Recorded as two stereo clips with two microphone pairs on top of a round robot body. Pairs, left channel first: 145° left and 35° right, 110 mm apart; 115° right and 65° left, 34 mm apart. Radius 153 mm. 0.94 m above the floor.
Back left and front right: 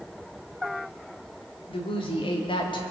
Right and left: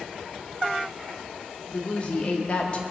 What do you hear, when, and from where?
1.7 s a woman speaking: 175° right, 2.5 m; by 2.8 s 170° right, 2.0 m